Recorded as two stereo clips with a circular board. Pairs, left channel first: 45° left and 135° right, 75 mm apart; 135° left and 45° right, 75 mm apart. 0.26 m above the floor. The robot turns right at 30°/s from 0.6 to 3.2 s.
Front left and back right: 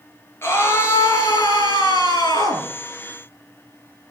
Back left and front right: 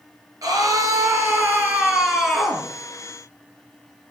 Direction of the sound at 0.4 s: 10° right.